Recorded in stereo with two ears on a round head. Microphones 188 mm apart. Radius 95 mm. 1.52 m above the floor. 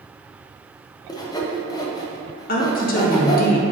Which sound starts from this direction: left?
A woman speaking, at 2.5 s.